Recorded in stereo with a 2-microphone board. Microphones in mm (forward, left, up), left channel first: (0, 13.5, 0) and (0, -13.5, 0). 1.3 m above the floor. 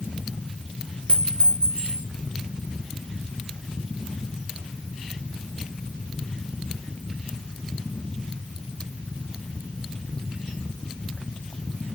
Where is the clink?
55° left (ahead or behind), 3.5 m.